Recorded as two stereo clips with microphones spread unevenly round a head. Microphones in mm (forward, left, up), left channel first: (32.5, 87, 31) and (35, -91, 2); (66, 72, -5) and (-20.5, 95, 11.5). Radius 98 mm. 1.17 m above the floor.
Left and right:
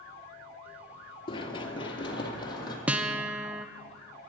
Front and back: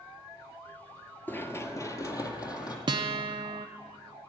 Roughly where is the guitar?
Behind.